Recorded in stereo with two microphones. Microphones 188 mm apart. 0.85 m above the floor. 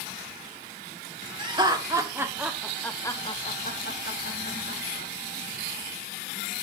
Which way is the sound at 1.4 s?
25° right (ahead or behind).